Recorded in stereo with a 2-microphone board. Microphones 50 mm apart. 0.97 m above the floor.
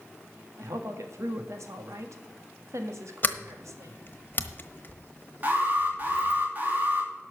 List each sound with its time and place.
0.6 s a woman speaking: 75° right (ahead or behind), 1.6 m
3.2 s a sliding door: 40° left (ahead or behind), 1.0 m
5.4 s an alarm: 35° right (ahead or behind), 2.5 m